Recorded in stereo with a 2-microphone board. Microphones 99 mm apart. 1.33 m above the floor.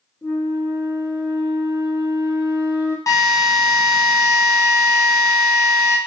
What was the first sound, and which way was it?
A flute, 35° left (ahead or behind).